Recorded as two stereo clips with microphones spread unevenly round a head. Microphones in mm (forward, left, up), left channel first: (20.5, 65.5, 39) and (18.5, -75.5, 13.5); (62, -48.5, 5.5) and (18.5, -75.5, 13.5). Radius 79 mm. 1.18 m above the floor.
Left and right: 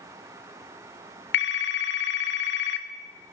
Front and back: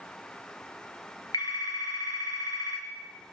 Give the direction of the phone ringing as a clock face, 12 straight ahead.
9 o'clock.